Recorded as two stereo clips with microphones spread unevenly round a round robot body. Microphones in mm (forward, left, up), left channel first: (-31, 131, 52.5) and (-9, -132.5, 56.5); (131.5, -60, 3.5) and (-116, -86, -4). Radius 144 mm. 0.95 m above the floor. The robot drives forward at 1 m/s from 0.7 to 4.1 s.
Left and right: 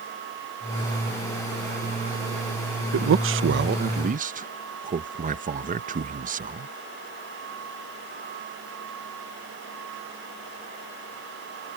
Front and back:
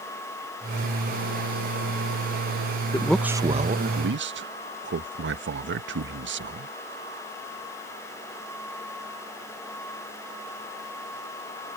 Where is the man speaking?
70° right; by 6.7 s 140° right.